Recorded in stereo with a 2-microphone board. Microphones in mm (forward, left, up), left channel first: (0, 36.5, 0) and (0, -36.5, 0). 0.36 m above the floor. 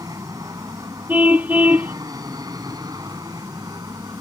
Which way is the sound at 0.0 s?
55° right (ahead or behind).